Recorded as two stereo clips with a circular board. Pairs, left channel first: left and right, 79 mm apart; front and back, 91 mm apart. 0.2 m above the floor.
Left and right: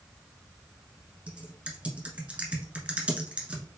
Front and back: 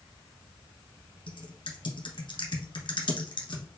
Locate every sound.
1.3 s typing on a keyboard: 15° right, 1.1 m